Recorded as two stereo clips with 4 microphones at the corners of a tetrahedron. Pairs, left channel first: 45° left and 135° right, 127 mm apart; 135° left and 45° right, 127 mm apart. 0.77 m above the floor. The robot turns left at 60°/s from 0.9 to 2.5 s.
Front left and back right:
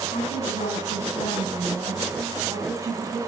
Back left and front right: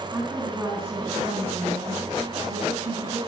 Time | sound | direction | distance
0.1 | a woman speaking | 30° left | 7 m